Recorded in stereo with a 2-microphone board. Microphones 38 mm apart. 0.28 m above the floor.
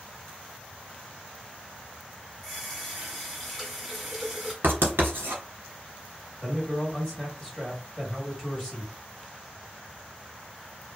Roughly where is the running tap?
Centre.